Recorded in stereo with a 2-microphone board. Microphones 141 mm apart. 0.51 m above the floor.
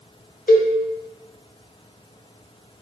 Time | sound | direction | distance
0.5 | a cowbell | 70° left (ahead or behind) | 1.2 m